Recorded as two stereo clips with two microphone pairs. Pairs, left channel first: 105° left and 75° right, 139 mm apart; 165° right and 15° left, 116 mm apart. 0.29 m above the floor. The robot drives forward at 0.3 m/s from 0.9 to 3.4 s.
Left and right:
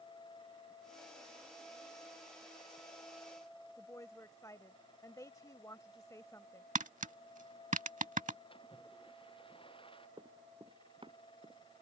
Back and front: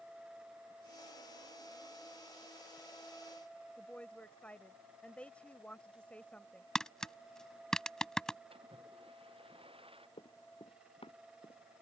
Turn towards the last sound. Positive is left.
turn(degrees=-125)